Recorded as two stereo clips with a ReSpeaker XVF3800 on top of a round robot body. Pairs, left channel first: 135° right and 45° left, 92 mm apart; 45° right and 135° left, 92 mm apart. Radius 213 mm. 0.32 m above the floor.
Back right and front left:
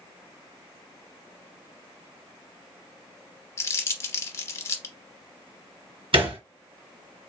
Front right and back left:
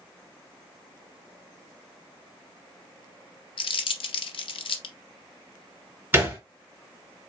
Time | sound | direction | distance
3.6 | crumpling | 75° right | 0.6 m
6.1 | a thud | 65° left | 3 m